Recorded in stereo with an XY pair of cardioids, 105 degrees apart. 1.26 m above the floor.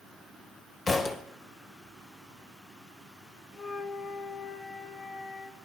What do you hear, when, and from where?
0.9 s a thud: 35° left, 2.5 m
3.5 s a flute: 50° left, 1.5 m